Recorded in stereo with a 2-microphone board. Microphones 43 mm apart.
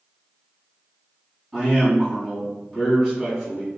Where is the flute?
No flute in this recording.